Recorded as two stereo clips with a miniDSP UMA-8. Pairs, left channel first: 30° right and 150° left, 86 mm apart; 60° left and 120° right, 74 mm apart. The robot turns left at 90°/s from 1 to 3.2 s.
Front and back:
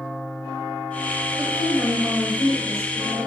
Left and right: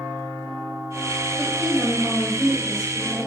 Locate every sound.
1.4 s a woman speaking: 70° right, 1.6 m; by 3.3 s 125° left, 1.6 m